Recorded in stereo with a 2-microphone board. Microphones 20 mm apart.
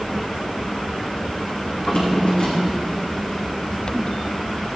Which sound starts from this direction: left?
A drawer, at 1.7 s.